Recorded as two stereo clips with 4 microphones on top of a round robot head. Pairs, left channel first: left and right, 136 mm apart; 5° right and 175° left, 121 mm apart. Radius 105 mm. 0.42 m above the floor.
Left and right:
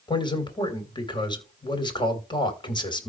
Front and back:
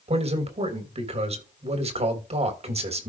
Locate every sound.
0.1 s a man speaking: 145° left, 3 m